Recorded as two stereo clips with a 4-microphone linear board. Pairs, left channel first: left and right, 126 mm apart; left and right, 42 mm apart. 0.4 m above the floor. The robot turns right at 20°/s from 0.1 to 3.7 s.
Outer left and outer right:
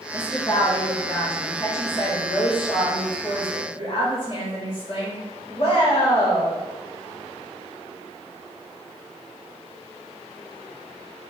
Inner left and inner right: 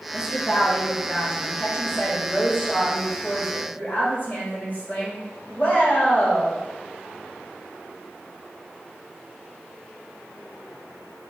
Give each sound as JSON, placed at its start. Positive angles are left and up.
{"t": 0.1, "sound": "a woman speaking", "azimuth_deg": 25, "distance_m": 1.8}